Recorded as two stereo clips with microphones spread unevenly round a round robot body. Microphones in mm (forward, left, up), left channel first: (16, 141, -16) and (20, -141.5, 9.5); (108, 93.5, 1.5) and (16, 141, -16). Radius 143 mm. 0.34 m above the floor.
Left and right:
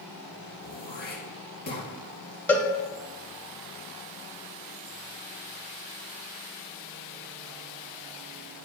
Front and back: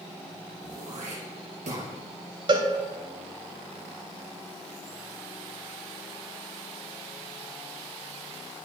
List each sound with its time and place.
0.6 s throat clearing: 150° left, 2.5 m
2.5 s a cowbell: 170° left, 0.6 m